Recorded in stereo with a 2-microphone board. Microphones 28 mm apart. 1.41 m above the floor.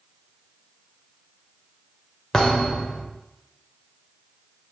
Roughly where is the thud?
Centre.